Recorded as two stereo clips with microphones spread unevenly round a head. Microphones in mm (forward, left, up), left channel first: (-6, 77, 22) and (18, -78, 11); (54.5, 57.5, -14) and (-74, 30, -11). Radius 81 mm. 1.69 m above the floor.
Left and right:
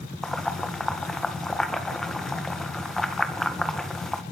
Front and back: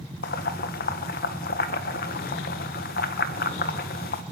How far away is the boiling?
About 2 m.